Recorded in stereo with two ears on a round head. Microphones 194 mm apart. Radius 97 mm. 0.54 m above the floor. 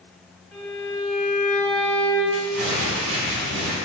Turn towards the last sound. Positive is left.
turn(degrees=-70)  # may be behind; listen again after turning